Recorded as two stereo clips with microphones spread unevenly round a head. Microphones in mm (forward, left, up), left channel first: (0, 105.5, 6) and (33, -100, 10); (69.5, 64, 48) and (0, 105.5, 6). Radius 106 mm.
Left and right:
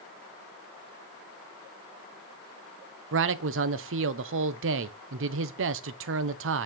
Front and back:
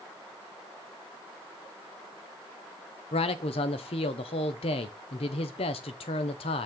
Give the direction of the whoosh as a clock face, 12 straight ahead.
I don't hear a whoosh.